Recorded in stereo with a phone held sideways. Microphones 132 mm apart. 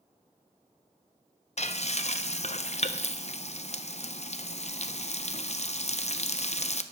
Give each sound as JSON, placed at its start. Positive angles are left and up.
{"t": 1.6, "sound": "frying", "side_deg": 55, "distance_m": 0.5}